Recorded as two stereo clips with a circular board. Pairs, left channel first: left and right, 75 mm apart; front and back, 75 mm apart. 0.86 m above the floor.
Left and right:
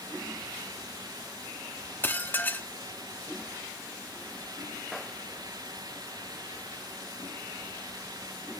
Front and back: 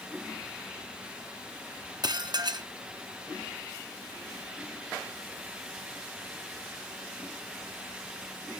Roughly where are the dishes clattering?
Behind left.